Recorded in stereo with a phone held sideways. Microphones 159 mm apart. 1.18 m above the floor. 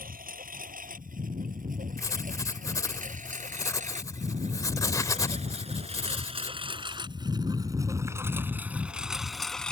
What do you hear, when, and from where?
0.0 s a lawn mower: 65° right (ahead or behind); by 9.7 s 5° left (ahead or behind)
2.0 s writing: 20° left (ahead or behind)